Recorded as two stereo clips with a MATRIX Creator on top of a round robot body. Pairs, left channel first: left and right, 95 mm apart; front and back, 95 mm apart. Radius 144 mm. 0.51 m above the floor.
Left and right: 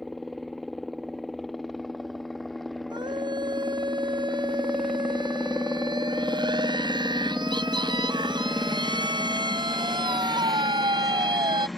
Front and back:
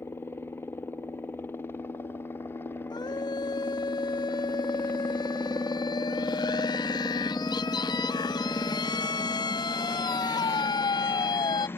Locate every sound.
0.0 s a helicopter: straight ahead
2.9 s a scream: 50° right